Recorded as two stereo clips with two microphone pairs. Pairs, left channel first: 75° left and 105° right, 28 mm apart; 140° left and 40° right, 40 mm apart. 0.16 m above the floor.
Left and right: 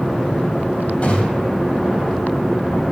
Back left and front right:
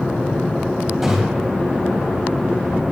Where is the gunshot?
50° left, 3.5 m.